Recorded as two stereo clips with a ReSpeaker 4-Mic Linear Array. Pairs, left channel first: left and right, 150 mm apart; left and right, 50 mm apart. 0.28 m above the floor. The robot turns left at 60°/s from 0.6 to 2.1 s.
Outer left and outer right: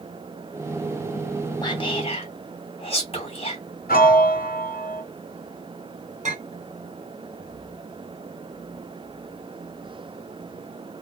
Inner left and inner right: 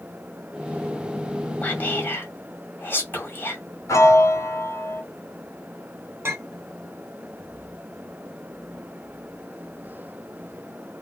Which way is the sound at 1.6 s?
30° left (ahead or behind).